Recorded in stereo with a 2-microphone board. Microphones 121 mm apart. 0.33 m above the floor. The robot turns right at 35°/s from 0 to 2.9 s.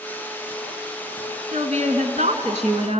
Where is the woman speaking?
125° right, 3 m; by 3.0 s 75° right, 3 m.